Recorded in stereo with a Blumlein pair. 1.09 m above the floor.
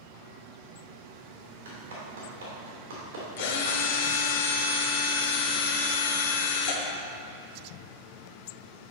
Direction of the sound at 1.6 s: 65° right.